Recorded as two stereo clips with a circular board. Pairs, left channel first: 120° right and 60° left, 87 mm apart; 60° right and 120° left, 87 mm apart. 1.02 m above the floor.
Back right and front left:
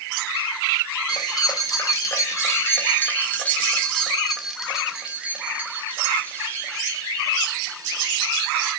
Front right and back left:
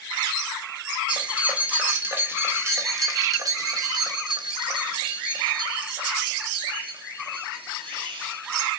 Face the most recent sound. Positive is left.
turn(degrees=100)